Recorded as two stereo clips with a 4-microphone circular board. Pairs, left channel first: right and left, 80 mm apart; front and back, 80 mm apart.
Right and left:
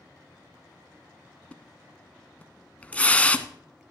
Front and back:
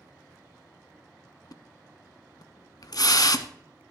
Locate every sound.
1.5 s a splash: 20° right, 0.5 m